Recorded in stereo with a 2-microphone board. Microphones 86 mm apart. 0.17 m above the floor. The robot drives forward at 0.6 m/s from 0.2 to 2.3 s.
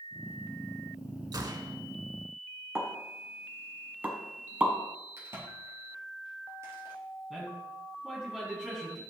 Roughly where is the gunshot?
Right.